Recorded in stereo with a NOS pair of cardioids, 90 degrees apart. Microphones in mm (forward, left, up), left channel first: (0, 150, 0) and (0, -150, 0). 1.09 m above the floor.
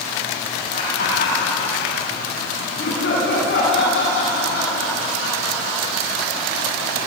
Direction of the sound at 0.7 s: 35° left.